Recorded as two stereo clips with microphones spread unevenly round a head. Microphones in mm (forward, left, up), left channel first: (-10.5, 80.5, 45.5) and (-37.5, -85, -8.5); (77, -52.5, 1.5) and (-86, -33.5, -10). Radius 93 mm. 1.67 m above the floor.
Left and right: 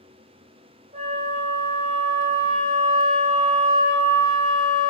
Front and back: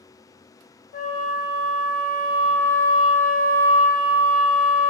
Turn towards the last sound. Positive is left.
turn(degrees=-35)